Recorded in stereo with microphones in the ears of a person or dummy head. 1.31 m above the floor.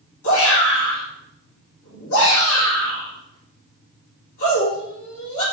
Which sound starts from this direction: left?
A shout, at 0.2 s.